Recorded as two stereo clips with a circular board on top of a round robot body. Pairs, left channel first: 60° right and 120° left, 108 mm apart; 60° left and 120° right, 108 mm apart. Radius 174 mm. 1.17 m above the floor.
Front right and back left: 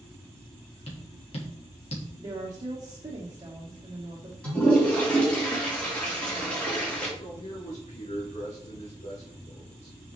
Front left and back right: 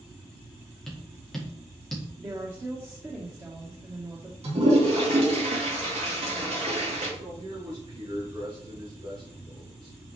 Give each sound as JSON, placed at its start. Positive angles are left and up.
{"t": 0.9, "sound": "tapping", "azimuth_deg": -25, "distance_m": 1.9}
{"t": 2.2, "sound": "a woman speaking", "azimuth_deg": 175, "distance_m": 1.4}
{"t": 4.4, "sound": "a toilet flushing", "azimuth_deg": -140, "distance_m": 4.0}
{"t": 7.2, "sound": "a man speaking", "azimuth_deg": -70, "distance_m": 2.5}